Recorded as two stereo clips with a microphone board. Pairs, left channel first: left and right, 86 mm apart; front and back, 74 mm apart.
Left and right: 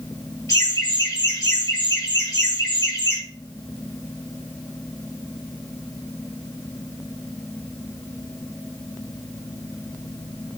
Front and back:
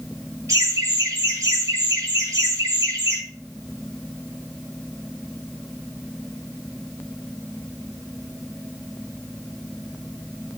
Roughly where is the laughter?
Behind left.